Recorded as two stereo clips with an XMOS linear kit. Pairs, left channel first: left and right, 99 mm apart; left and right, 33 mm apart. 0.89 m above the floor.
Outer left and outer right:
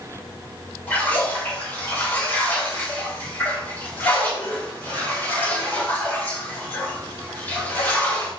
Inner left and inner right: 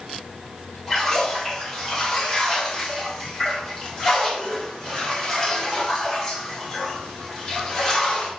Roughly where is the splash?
Centre.